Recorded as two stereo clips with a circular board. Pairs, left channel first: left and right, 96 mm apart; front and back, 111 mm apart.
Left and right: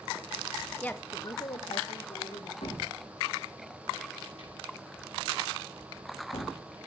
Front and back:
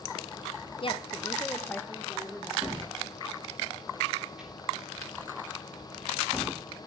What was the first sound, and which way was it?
A woman speaking, 15° left.